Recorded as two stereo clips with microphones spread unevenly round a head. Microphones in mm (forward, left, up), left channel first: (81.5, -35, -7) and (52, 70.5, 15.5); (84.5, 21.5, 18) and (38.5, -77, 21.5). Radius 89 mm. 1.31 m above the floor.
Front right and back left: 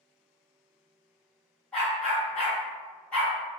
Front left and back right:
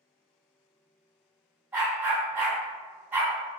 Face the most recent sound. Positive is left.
turn(degrees=-170)